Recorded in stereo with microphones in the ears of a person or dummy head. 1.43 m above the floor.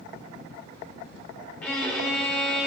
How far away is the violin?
About 1.9 m.